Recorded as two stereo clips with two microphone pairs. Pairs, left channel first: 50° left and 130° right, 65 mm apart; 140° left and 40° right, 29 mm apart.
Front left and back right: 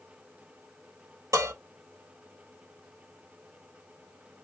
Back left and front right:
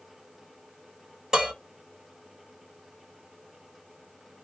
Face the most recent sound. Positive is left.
turn(degrees=-110)